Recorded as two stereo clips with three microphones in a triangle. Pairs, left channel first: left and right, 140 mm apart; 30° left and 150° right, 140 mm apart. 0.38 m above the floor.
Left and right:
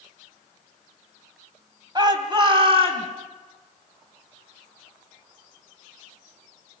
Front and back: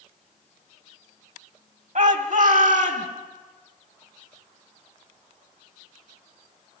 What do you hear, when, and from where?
1.9 s a shout: 145° right, 2.5 m; by 3.1 s 135° right, 4 m